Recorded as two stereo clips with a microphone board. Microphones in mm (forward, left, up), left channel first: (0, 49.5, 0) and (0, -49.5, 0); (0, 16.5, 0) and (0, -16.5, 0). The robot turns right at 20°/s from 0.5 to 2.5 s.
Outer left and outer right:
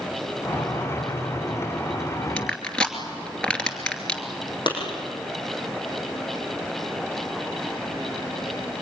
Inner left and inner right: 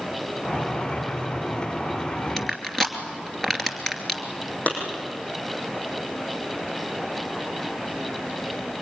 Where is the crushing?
10° left (ahead or behind), 2.5 m.